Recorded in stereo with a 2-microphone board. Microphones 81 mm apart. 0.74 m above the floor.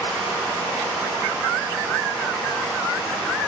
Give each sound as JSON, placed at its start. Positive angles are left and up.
{"t": 0.0, "sound": "running water", "side_deg": 25, "distance_m": 2.5}